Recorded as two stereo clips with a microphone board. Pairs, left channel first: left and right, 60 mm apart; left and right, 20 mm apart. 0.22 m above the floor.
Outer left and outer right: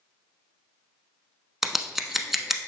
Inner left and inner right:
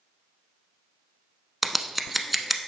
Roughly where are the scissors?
Centre.